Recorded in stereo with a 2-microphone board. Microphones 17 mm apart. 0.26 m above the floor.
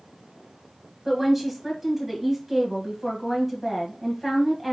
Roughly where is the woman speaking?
Centre.